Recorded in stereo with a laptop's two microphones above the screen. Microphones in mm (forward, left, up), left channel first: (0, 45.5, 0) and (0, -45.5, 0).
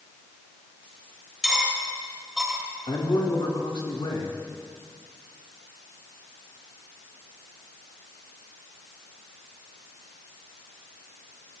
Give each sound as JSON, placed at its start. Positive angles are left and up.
{"t": 1.4, "sound": "cutlery clinking", "side_deg": -5, "distance_m": 3.0}
{"t": 2.9, "sound": "a man speaking", "side_deg": 80, "distance_m": 3.5}